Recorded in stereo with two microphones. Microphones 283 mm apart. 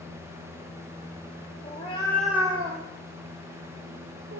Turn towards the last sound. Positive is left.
turn(degrees=-75)  # may be behind; listen again after turning